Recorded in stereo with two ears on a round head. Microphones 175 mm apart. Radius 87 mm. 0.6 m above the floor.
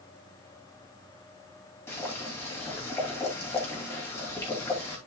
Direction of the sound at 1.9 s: 10° left (ahead or behind).